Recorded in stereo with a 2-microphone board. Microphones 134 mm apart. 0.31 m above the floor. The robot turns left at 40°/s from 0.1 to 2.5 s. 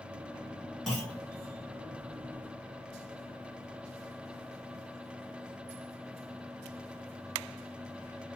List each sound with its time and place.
0.9 s a clunk: centre (ahead or behind), 4 m; by 1.2 s 15° left (ahead or behind), 4 m